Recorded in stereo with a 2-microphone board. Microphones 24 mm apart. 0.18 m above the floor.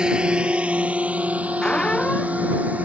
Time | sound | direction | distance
0.0 | a drone | 35° right (ahead or behind) | ?
1.6 | a squeak | 40° left (ahead or behind) | ?